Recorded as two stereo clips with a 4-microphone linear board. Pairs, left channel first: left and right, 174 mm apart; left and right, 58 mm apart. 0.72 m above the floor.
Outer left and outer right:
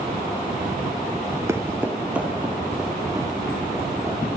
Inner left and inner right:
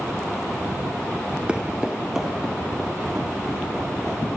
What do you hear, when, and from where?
1.5 s footsteps: 20° right (ahead or behind), 0.7 m; by 4.2 s centre (ahead or behind), 4 m